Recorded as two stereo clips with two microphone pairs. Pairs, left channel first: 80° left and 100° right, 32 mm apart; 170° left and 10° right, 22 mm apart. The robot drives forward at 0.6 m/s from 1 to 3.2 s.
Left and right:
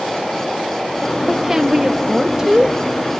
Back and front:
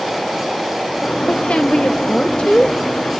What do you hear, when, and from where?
1.3 s a woman speaking: straight behind, 1.3 m